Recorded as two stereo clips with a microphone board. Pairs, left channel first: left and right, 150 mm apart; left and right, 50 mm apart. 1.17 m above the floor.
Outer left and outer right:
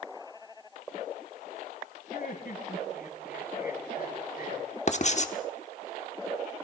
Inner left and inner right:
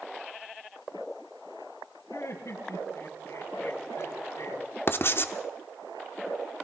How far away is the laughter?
About 6.5 m.